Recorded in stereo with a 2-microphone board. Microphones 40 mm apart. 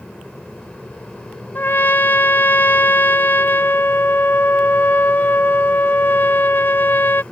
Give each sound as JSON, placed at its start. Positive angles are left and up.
{"t": 1.6, "sound": "a trumpet", "side_deg": 50}